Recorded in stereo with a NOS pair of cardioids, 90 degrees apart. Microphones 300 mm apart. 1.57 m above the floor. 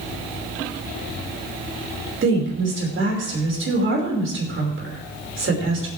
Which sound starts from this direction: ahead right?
A woman speaking, at 2.2 s.